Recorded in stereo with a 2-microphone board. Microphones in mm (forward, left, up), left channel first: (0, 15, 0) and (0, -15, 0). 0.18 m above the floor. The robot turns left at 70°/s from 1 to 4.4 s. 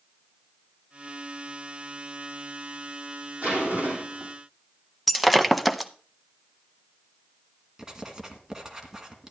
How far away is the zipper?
About 4.5 m.